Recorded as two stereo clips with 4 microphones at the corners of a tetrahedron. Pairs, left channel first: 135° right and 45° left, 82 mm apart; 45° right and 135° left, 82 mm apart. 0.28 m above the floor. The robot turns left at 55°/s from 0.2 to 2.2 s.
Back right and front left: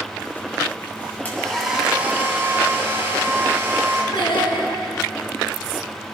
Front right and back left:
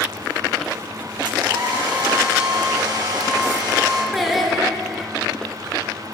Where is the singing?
135° right, 2.5 m.